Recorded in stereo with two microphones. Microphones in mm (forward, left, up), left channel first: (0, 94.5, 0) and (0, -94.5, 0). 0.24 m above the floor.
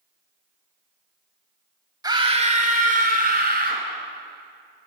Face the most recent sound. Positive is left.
turn(degrees=-55)  # may be behind; listen again after turning